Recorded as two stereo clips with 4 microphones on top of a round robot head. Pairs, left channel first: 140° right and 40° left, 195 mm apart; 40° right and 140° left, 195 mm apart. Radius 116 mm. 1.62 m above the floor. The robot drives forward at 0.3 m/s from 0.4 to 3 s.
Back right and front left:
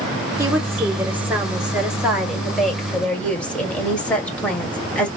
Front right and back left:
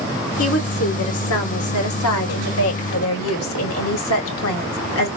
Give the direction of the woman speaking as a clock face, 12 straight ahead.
1 o'clock.